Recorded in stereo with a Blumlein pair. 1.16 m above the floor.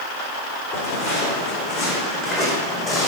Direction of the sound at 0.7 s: 35° left.